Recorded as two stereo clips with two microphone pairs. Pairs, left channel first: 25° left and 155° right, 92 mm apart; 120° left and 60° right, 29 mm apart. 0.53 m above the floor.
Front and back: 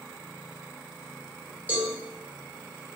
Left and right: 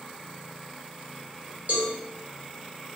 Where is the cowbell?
80° right, 1.1 m.